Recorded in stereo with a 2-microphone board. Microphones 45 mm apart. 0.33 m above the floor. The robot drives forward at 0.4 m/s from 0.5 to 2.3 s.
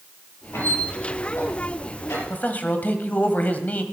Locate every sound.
0.5 s a squeak: 75° left (ahead or behind), 6 m; by 2.2 s 80° left, 6 m
2.3 s a man speaking: 40° left (ahead or behind), 1.4 m